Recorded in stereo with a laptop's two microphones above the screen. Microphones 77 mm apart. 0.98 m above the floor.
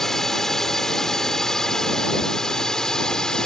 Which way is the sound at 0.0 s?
5° left (ahead or behind).